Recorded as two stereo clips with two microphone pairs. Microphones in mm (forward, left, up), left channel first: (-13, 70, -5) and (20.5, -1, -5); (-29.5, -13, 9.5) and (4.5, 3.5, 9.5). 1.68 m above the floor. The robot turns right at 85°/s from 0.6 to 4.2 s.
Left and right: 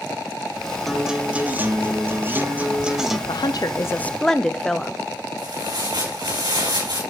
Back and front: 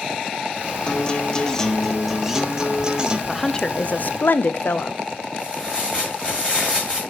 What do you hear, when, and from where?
0.9 s a guitar: 165° right, 0.7 m; by 3.2 s 35° left, 0.7 m
3.3 s a woman speaking: 115° left, 0.5 m; by 5.0 s 170° right, 0.5 m
5.4 s tearing paper: 80° right, 6.5 m